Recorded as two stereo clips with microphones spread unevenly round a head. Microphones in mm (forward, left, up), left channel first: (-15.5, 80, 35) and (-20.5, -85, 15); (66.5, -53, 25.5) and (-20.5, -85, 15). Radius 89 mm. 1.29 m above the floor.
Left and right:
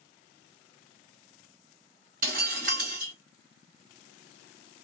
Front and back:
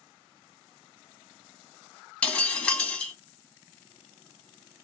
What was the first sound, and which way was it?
Breaking glass, 50° right.